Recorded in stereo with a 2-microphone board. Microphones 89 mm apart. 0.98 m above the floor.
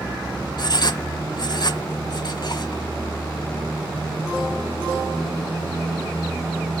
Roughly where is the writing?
Left.